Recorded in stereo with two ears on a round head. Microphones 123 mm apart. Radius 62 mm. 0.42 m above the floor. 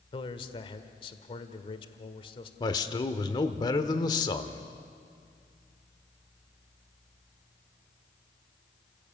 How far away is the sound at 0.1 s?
About 1.5 m.